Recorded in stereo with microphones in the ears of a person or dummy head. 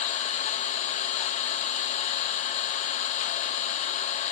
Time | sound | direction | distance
0.0 | an engine running | 35° left (ahead or behind) | 1.2 m